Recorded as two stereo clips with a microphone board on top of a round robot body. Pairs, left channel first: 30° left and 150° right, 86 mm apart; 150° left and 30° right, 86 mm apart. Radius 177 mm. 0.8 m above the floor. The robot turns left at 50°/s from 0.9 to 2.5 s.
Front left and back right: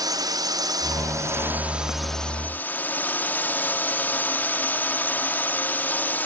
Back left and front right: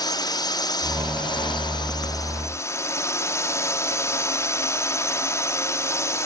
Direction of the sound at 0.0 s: Straight behind.